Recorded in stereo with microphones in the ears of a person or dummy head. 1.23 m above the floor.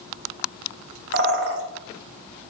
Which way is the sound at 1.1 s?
75° right (ahead or behind).